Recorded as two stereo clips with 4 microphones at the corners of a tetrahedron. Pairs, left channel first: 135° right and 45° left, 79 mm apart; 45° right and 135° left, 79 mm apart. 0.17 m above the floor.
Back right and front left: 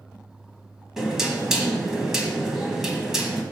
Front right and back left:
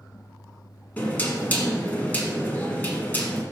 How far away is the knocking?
About 1.2 m.